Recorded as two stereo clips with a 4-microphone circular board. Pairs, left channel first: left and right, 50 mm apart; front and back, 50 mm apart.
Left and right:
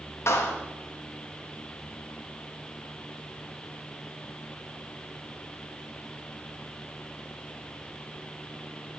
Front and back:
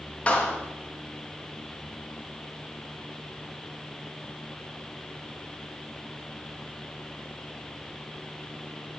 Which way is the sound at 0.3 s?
65° left.